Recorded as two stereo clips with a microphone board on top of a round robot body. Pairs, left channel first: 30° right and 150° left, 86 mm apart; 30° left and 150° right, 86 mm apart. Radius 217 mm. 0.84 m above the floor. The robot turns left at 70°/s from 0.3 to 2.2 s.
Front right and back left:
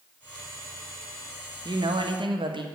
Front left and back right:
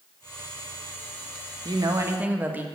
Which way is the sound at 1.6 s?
Straight behind.